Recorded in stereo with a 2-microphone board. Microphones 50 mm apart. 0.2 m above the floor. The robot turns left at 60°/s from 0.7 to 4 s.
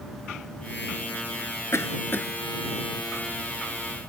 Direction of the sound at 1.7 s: 65° left (ahead or behind).